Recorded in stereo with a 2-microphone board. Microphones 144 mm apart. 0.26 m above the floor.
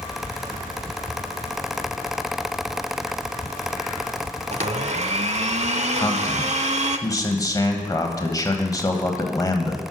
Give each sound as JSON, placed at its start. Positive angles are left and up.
{"t": 4.5, "sound": "a blender", "side_deg": -50, "distance_m": 0.5}
{"t": 6.0, "sound": "a man speaking", "side_deg": 25, "distance_m": 1.1}